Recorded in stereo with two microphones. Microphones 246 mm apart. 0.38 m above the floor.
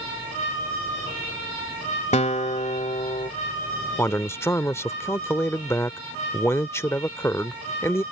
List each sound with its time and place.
2.1 s a guitar: 30° left (ahead or behind)
4.0 s a man speaking: 10° left (ahead or behind)